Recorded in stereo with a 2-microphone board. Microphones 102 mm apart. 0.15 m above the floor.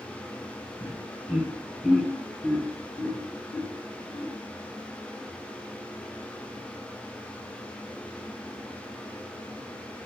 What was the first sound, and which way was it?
Laughter, 15° right (ahead or behind).